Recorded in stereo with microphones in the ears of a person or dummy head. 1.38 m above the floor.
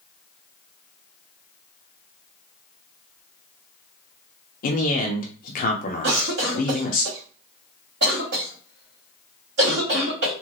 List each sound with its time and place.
4.6 s a man speaking: 45° left (ahead or behind), 1.0 m
6.0 s a cough: 65° right (ahead or behind), 2.0 m